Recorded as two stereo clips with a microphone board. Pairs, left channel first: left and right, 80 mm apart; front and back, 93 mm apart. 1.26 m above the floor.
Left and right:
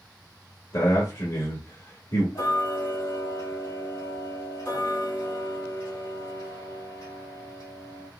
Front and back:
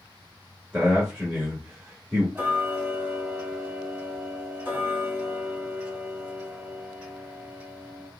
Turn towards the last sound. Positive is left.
turn(degrees=110)